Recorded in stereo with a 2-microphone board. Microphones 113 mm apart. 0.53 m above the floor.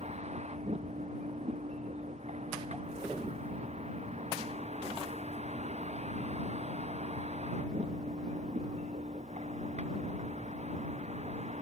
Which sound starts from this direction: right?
A vehicle, at 0.0 s.